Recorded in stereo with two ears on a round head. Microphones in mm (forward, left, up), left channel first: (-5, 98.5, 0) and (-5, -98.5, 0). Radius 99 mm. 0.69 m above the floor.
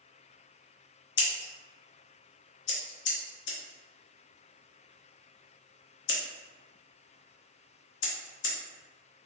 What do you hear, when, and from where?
1.2 s scissors: 55° left (ahead or behind), 0.8 m